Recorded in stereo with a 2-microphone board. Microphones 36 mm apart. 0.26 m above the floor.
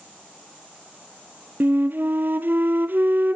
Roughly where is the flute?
Right.